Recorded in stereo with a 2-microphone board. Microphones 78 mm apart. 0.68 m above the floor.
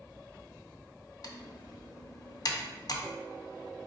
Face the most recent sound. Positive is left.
turn(degrees=50)  # may be behind; listen again after turning